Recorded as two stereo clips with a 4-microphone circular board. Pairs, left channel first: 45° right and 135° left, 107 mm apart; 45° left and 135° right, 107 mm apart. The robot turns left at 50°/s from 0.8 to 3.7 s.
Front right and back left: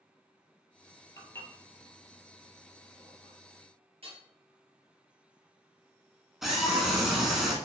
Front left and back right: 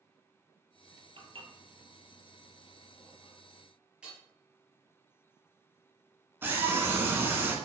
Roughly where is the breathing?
No breathing in this recording.